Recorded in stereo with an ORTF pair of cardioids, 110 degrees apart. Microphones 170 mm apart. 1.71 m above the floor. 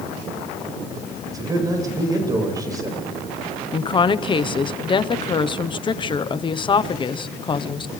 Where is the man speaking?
20° right, 9 m.